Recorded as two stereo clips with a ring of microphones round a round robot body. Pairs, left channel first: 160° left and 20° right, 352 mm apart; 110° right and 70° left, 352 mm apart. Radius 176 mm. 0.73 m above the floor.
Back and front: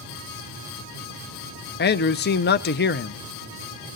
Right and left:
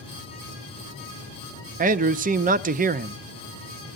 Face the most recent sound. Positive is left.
turn(degrees=120)